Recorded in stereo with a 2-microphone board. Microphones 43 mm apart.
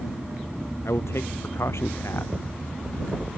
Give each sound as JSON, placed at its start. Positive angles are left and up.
{"t": 0.8, "sound": "a man speaking", "side_deg": 75}